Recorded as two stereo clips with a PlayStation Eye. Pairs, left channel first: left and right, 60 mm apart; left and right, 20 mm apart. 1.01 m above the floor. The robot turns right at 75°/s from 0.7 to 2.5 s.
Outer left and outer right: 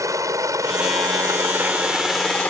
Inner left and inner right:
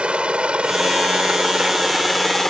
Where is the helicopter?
65° right (ahead or behind); by 2.5 s 25° left (ahead or behind).